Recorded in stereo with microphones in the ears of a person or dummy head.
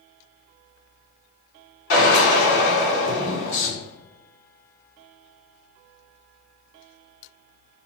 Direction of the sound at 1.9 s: 75° left (ahead or behind).